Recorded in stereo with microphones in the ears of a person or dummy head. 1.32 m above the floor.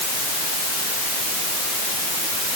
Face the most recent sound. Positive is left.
No sound to turn to.